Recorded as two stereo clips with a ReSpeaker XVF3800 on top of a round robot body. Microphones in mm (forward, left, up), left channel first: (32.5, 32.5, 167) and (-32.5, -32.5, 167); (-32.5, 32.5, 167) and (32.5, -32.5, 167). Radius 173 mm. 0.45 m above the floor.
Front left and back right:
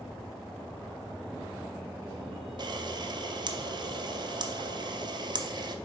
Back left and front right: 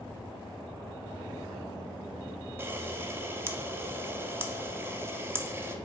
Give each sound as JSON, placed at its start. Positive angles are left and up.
{"t": 2.6, "sound": "a camera shutter", "azimuth_deg": -105, "distance_m": 0.6}